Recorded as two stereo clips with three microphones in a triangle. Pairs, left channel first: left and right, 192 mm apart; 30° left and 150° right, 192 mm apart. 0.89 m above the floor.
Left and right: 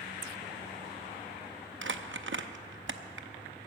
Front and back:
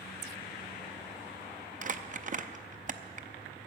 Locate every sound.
1.8 s crumpling: 100° right, 0.6 m